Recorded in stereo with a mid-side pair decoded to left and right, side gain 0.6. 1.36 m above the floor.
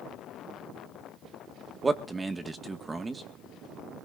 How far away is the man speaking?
About 2.0 m.